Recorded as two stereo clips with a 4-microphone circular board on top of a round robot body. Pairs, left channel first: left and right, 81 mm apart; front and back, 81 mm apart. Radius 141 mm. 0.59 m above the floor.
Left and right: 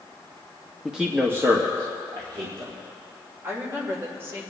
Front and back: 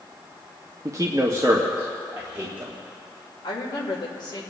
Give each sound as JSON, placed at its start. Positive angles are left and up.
{"t": 0.8, "sound": "a man speaking", "azimuth_deg": -175, "distance_m": 1.2}
{"t": 3.4, "sound": "a woman speaking", "azimuth_deg": -30, "distance_m": 2.5}